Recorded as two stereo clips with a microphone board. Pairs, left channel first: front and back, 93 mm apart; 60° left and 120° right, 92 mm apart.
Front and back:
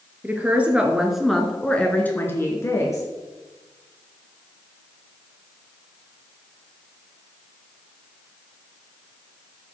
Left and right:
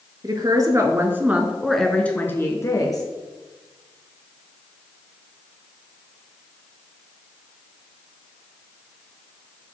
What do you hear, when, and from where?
0.2 s a woman speaking: 115° right, 1.4 m; by 3.0 s 40° left, 1.4 m